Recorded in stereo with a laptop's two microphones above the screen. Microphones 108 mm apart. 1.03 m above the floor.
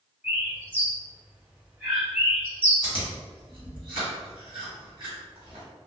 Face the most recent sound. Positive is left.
turn(degrees=-45)  # may be behind; listen again after turning